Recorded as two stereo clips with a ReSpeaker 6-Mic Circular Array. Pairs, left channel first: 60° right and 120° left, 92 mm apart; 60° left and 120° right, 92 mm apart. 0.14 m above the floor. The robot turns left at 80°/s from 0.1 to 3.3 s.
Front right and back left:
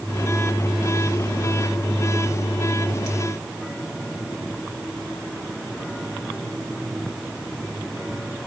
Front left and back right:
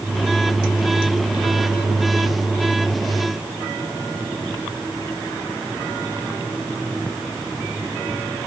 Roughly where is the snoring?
I don't hear snoring.